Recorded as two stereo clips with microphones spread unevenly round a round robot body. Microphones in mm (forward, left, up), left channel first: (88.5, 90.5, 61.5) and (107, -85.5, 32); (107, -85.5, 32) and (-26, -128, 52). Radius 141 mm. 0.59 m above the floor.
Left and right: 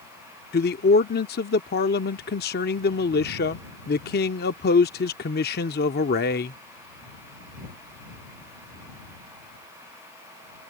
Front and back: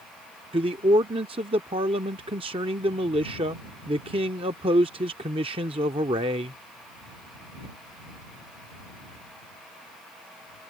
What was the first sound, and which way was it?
A man speaking, 135° left.